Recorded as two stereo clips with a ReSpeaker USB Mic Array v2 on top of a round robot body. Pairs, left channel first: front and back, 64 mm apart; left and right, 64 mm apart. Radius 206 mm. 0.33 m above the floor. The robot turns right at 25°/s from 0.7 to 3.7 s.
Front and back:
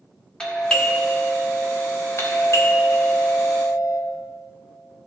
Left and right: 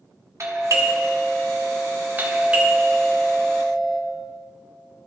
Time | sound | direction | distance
0.4 | a doorbell | 70° right | 1.8 m